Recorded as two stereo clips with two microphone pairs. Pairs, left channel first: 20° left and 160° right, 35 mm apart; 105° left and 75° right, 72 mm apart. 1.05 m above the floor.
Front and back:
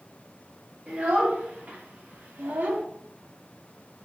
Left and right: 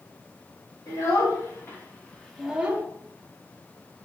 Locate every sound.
0.9 s a child speaking: 150° left, 1.5 m; by 2.8 s 135° right, 0.7 m